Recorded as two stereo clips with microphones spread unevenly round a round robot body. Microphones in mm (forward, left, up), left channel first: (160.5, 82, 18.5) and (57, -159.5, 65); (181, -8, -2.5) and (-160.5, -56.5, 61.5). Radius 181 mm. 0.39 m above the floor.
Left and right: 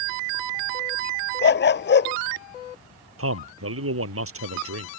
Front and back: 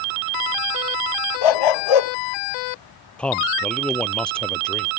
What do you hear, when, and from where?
1.4 s a dog barking: 20° left
3.2 s a man speaking: 80° right